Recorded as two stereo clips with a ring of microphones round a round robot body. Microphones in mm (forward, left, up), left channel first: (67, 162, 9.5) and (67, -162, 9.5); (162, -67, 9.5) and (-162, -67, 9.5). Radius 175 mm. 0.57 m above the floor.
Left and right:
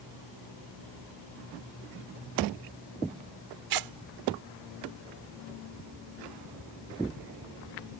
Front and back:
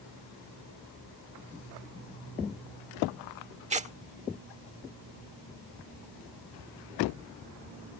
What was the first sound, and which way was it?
Tearing paper, 110° right.